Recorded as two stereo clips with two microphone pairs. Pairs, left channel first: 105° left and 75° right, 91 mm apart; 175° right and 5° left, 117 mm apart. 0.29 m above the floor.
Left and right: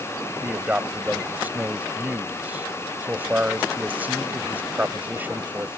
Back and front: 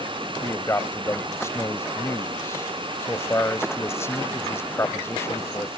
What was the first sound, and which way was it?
A man speaking, 125° right.